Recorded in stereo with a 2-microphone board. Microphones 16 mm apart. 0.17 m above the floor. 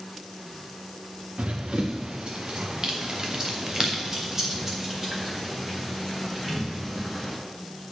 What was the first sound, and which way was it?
Running footsteps, 80° right.